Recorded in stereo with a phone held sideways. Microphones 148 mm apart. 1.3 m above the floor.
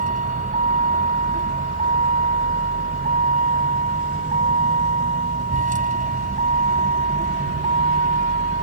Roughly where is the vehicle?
Right.